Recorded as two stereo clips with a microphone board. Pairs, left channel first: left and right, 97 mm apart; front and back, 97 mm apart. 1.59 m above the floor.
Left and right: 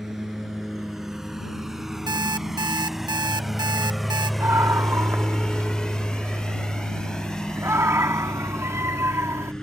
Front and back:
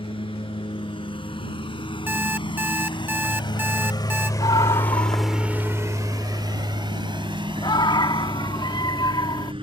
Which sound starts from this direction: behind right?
An alarm clock, at 2.1 s.